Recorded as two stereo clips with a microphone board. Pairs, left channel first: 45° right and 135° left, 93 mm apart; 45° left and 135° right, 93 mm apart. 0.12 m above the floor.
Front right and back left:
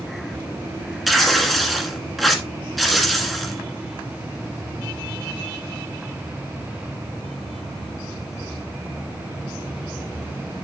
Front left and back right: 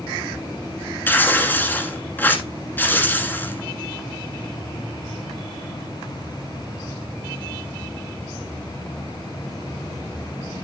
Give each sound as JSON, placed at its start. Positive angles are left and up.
{"t": 1.1, "sound": "tearing paper", "azimuth_deg": 45, "distance_m": 1.5}